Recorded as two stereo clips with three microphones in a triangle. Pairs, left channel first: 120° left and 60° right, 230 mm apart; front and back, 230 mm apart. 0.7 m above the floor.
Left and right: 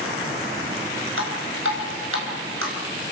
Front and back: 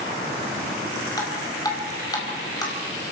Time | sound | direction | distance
1.2 | dripping | 75° right | 5 m